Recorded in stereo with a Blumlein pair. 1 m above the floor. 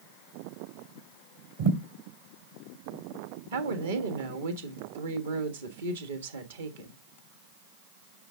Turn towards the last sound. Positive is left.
turn(degrees=-65)